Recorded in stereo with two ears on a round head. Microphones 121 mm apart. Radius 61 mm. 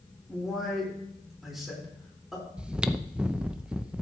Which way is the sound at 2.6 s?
10° right (ahead or behind).